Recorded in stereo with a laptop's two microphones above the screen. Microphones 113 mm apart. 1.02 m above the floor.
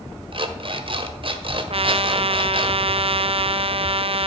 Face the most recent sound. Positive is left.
turn(degrees=-55)  # may be behind; listen again after turning